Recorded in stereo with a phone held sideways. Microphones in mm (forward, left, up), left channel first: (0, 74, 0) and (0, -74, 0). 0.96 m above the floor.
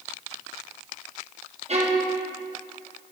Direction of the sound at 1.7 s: 50° right (ahead or behind).